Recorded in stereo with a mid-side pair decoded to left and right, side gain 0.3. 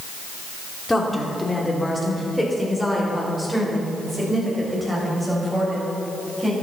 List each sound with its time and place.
0.9 s a woman speaking: 25° left, 3.5 m; by 6.5 s 10° right, 7.5 m